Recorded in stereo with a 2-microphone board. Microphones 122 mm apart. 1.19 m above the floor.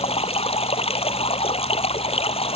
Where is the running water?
55° left (ahead or behind).